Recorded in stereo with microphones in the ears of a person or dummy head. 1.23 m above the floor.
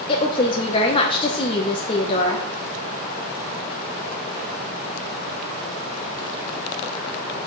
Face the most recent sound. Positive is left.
turn(degrees=25)  # may be behind; listen again after turning